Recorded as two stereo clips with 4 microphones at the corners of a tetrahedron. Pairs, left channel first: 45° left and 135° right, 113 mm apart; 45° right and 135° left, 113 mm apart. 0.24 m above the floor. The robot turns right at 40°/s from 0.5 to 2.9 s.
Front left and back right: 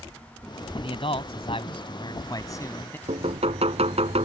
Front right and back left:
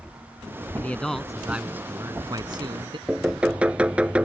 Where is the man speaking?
25° left; by 3.0 s 110° left.